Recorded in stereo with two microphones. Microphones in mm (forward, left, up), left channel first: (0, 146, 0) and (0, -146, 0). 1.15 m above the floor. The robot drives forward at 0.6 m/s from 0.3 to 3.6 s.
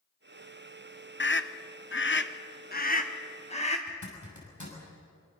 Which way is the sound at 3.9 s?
90° left.